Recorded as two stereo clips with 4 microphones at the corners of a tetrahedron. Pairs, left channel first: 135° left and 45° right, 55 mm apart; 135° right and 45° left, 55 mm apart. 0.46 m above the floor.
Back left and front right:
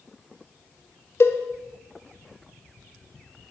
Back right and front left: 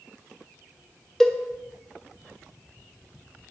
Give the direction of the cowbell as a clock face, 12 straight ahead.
7 o'clock.